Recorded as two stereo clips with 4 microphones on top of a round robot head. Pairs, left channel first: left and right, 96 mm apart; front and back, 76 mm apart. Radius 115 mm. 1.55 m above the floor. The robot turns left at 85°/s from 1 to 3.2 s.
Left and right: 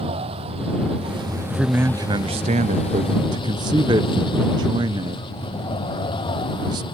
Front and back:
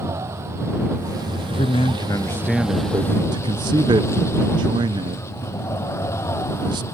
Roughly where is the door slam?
I don't hear a door slam.